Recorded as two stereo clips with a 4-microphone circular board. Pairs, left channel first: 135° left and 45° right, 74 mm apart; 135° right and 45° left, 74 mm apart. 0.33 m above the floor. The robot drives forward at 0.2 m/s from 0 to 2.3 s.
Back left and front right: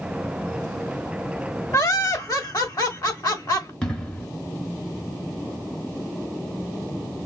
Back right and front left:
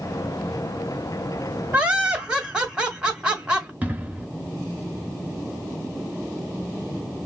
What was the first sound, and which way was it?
Laughter, 115° left.